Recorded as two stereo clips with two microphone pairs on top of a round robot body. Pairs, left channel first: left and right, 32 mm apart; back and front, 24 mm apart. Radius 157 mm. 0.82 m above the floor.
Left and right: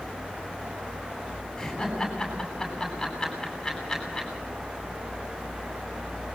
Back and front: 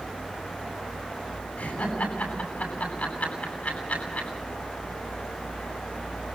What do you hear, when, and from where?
1.6 s laughter: 170° left, 9.5 m